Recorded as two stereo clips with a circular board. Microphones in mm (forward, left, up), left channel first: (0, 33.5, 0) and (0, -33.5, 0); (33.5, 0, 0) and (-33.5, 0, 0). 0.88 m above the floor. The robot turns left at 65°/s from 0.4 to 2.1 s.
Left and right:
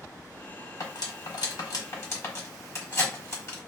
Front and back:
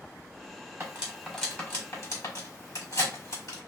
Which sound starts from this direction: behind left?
Cutlery clinking, at 0.8 s.